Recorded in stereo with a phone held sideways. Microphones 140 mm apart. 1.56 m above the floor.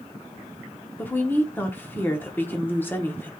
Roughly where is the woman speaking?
Centre.